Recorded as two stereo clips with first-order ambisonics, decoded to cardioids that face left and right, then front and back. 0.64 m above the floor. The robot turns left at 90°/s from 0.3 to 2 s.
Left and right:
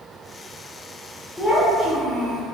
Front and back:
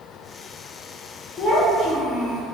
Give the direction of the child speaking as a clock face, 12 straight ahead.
12 o'clock.